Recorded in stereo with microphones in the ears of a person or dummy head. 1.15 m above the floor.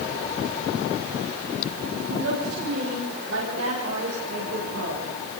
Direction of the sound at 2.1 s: 75° right (ahead or behind).